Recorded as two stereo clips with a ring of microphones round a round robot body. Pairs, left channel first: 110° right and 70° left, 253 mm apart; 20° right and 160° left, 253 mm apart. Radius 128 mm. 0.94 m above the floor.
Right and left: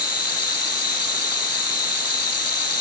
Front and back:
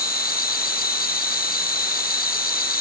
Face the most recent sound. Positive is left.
turn(degrees=-80)